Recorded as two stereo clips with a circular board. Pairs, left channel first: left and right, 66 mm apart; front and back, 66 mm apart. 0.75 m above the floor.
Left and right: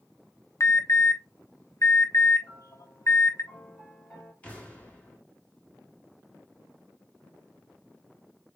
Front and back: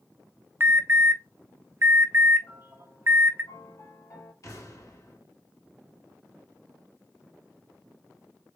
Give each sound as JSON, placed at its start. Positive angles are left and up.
{"t": 0.6, "sound": "an alarm", "azimuth_deg": 130, "distance_m": 0.7}
{"t": 2.4, "sound": "a piano", "azimuth_deg": 25, "distance_m": 2.5}
{"t": 4.4, "sound": "an explosion", "azimuth_deg": 25, "distance_m": 1.4}